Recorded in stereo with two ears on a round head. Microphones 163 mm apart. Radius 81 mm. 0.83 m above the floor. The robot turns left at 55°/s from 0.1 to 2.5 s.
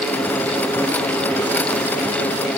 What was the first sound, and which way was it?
Only background noise.